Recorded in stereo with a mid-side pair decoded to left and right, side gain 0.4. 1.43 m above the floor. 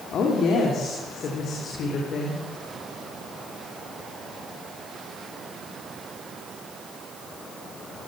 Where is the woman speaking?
70° left, 4 m; by 2.4 s 65° left, 5.5 m.